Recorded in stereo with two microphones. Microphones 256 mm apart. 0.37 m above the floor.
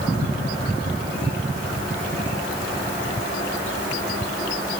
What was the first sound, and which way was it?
Only background noise.